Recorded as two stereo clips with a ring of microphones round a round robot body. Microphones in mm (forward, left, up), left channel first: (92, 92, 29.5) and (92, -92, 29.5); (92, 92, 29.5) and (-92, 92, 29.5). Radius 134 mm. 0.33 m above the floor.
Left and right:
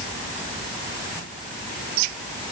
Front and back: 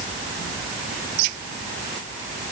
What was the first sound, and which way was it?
Only background noise.